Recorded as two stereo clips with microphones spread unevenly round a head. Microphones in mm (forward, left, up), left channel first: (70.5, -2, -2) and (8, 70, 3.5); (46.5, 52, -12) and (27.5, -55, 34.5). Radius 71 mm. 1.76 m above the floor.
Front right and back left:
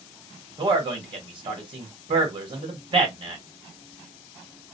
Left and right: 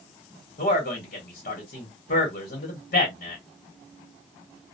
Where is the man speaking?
105° left, 1.1 m.